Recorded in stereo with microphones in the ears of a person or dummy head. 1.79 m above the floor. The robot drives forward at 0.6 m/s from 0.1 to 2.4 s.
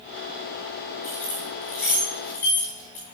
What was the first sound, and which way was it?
Keys jangling, 5° left (ahead or behind).